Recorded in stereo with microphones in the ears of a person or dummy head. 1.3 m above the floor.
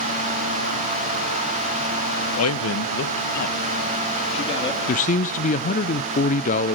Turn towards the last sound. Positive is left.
turn(degrees=40)  # may be behind; listen again after turning